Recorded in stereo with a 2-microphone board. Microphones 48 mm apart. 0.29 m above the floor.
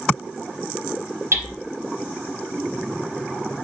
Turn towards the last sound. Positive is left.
turn(degrees=-65)  # may be behind; listen again after turning